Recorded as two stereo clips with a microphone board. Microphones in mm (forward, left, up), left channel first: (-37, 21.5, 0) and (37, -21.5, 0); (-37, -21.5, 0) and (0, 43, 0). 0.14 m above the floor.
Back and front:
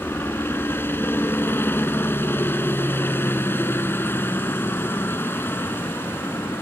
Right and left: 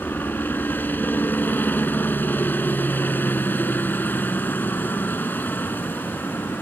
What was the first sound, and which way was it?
A helicopter, 165° right.